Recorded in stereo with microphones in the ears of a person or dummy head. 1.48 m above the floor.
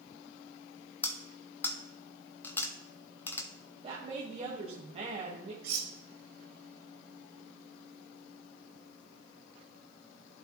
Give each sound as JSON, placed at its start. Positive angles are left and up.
{"t": 1.0, "sound": "cutlery clinking", "side_deg": 20, "distance_m": 1.0}
{"t": 3.8, "sound": "a woman speaking", "side_deg": -30, "distance_m": 1.6}
{"t": 5.6, "sound": "cutlery clinking", "side_deg": -55, "distance_m": 1.1}